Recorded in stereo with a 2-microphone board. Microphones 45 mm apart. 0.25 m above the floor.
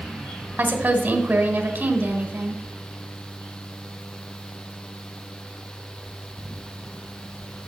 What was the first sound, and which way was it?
A woman speaking, 35° right (ahead or behind).